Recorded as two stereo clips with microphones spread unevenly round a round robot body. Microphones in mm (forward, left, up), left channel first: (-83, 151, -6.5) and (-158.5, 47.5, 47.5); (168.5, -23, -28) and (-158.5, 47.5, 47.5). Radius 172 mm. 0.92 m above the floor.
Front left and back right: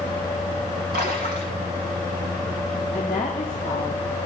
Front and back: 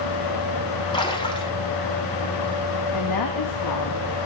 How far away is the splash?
About 1.5 m.